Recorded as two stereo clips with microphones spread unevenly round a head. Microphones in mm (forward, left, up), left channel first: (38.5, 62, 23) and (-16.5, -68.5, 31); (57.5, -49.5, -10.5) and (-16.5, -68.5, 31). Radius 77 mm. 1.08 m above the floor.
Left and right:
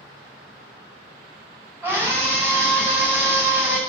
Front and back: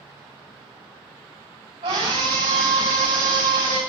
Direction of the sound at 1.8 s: 170° left.